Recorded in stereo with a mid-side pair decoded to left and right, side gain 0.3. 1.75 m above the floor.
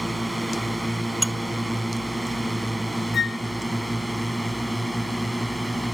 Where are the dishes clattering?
Straight ahead.